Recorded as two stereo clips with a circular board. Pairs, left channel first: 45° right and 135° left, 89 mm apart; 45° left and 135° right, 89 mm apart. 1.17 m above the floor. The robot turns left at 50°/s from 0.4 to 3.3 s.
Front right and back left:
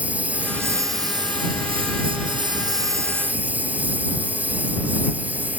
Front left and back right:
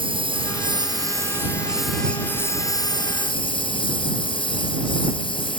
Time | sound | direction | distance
0.0 | a lawn mower | 150° right | ?